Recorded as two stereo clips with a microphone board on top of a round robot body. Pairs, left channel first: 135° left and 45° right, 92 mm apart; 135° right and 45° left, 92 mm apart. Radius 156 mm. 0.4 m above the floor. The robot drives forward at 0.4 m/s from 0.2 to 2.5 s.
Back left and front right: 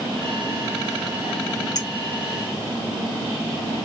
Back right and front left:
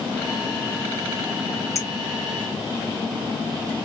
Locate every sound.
1.8 s a clink: 175° left, 1.3 m